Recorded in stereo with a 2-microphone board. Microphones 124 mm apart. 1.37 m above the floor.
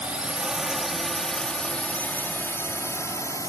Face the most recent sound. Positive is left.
turn(degrees=25)  # may be behind; listen again after turning